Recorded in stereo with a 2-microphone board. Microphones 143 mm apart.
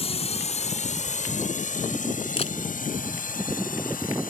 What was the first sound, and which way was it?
A drone, 45° left (ahead or behind).